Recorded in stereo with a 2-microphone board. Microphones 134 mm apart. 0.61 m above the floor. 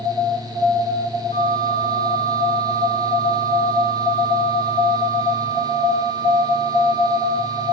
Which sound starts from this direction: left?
A flute, at 1.3 s.